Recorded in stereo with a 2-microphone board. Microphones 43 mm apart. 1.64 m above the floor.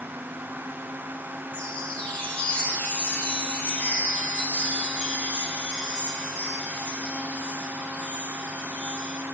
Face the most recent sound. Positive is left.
turn(degrees=35)  # may be behind; listen again after turning